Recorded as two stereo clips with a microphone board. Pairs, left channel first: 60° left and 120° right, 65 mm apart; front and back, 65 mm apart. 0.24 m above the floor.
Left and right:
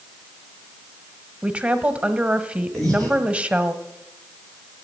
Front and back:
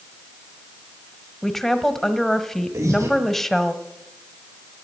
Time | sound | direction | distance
1.4 | a woman speaking | 80° right | 1.2 m
2.7 | breathing | 140° left | 9 m